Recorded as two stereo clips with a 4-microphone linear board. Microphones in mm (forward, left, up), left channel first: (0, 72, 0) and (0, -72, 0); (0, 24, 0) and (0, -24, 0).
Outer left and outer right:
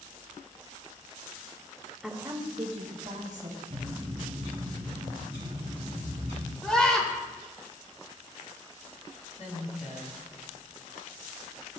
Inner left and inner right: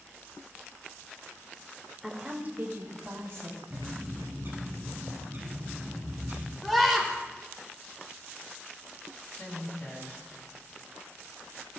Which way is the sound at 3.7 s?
50° right (ahead or behind).